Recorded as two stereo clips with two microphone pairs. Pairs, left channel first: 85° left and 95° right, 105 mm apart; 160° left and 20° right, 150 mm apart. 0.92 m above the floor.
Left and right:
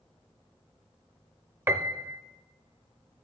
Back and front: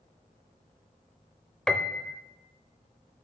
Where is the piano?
125° right, 0.7 m.